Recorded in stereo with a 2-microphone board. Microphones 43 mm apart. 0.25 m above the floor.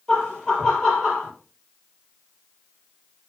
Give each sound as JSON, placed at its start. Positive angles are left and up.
{"t": 0.1, "sound": "laughter", "side_deg": 10, "distance_m": 5.5}